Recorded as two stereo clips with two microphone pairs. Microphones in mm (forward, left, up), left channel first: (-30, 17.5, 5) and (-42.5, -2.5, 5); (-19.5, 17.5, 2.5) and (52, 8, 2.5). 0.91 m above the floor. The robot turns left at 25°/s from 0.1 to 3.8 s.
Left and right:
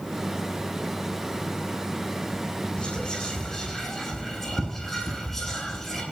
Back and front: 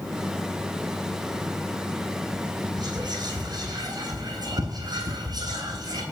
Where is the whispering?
5° left, 8.5 m; by 6.0 s 25° right, 8.5 m.